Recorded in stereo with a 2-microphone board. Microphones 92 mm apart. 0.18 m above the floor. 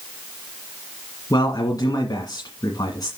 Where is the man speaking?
45° left (ahead or behind), 1.8 m.